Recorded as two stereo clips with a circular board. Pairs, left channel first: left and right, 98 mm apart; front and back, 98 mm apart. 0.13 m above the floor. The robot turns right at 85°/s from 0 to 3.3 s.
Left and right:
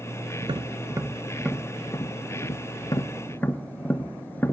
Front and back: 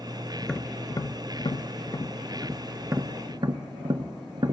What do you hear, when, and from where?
0.4 s tapping: 90° right, 0.6 m; by 4.5 s 155° left, 0.6 m